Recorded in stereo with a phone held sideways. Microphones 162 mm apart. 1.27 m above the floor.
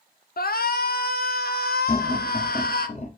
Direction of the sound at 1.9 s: 45° left (ahead or behind).